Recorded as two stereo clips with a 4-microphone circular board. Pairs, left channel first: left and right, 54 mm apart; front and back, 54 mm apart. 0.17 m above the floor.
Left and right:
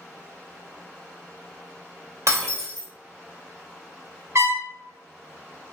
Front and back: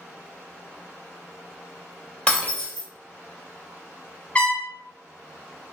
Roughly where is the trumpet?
Ahead right.